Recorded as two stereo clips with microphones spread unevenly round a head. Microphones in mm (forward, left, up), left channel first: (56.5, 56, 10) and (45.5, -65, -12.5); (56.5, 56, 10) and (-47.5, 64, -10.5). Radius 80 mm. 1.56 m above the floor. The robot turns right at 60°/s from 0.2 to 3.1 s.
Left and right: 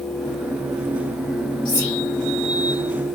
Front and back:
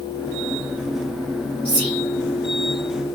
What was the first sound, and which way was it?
Whispering, 150° left.